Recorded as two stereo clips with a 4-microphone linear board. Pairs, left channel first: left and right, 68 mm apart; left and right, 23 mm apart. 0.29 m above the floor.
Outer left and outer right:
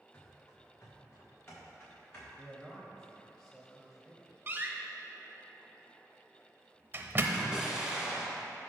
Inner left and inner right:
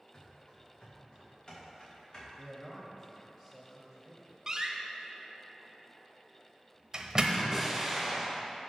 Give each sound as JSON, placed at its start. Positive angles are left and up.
{"t": 0.1, "sound": "running footsteps", "side_deg": 45, "distance_m": 3.0}
{"t": 2.4, "sound": "a man speaking", "side_deg": 5, "distance_m": 1.2}
{"t": 4.5, "sound": "a door slam", "side_deg": -30, "distance_m": 0.7}
{"t": 7.3, "sound": "an explosion", "side_deg": -10, "distance_m": 1.5}